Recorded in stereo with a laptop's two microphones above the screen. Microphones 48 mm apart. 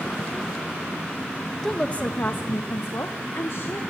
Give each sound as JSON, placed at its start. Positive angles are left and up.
{"t": 1.6, "sound": "a woman speaking", "side_deg": 10, "distance_m": 1.0}